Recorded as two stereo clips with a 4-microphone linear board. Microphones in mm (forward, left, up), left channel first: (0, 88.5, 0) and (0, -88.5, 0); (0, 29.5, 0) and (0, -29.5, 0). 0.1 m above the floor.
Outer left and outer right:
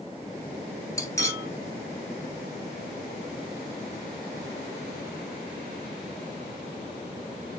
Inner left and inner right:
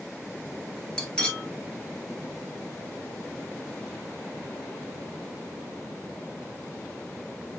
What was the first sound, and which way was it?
Cutlery clinking, 15° left (ahead or behind).